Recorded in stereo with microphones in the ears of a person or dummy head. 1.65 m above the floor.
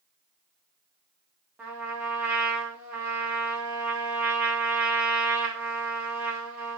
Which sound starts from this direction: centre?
A trumpet, at 1.6 s.